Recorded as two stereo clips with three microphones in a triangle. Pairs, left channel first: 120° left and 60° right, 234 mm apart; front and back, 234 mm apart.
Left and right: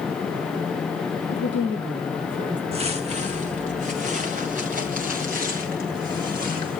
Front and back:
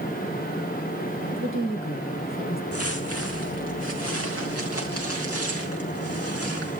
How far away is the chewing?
No chewing in this recording.